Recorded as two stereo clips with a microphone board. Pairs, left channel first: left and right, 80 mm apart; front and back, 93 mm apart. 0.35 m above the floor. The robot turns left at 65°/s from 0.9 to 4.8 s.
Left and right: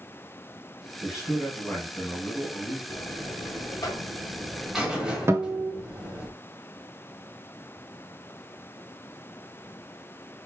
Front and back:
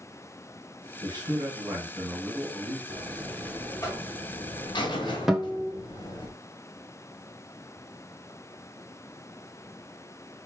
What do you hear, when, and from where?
1.0 s a man speaking: 165° right, 2 m; by 2.8 s 80° left, 2 m
2.9 s a buzzer: 115° left, 1.2 m; by 6.3 s 10° right, 1.2 m
5.3 s a guitar: 95° right, 0.8 m